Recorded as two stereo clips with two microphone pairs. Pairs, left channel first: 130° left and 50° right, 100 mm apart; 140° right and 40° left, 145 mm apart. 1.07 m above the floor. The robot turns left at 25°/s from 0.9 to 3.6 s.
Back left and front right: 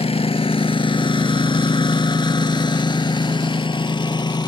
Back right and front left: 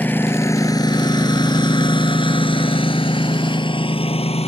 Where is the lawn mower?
140° left; by 4.5 s 175° left.